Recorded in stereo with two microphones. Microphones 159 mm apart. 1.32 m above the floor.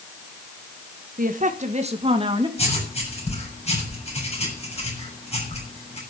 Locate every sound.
1.2 s a woman speaking: 60° right (ahead or behind), 1.4 m; by 2.5 s 30° right (ahead or behind), 2.5 m
2.6 s writing: 40° left (ahead or behind), 7 m